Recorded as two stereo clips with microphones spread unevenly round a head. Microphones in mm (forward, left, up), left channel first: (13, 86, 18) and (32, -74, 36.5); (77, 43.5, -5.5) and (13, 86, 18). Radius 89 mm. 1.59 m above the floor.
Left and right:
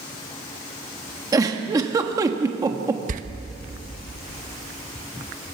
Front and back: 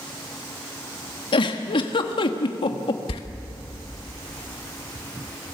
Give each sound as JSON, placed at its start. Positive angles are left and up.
{"t": 1.3, "sound": "a giggle", "azimuth_deg": -20, "distance_m": 1.4}
{"t": 3.1, "sound": "a door slam", "azimuth_deg": -60, "distance_m": 1.3}